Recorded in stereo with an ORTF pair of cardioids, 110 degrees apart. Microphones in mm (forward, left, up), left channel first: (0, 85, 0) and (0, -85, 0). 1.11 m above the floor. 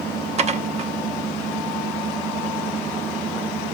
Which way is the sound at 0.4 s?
40° right.